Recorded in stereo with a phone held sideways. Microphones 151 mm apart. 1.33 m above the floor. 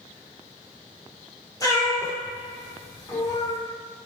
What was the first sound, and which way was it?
A cat meowing, 25° left (ahead or behind).